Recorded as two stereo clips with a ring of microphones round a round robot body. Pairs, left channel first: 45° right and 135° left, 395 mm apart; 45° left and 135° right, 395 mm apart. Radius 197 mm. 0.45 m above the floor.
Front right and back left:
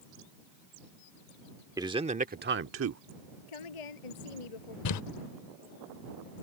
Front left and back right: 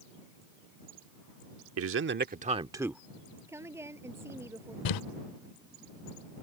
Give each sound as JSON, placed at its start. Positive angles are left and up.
{"t": 1.8, "sound": "a man speaking", "azimuth_deg": -150}
{"t": 3.5, "sound": "a woman speaking", "azimuth_deg": -50}
{"t": 4.8, "sound": "crumpling", "azimuth_deg": 5}